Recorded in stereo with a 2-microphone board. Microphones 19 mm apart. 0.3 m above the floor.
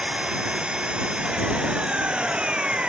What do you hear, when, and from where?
0.0 s an engine running: 60° right (ahead or behind)